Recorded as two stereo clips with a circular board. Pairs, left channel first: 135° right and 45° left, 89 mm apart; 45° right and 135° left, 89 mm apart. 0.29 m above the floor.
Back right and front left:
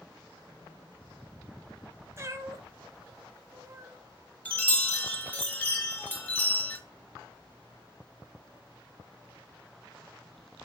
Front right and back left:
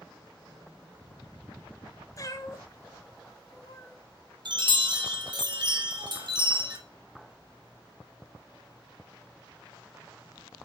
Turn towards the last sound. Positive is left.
turn(degrees=155)